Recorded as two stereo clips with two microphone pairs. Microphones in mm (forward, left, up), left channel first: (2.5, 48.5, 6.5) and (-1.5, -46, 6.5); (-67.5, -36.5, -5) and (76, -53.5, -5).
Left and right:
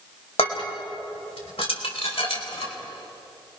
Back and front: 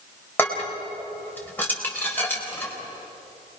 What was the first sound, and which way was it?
Dishes clattering, 95° left.